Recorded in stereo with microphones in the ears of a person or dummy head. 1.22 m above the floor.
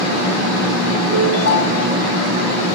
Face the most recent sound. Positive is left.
turn(degrees=75)  # may be behind; listen again after turning